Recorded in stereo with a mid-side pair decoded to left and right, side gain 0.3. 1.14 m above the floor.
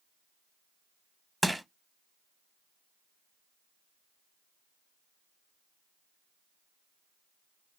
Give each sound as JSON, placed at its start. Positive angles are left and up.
{"t": 1.4, "sound": "crushing", "azimuth_deg": -10, "distance_m": 0.8}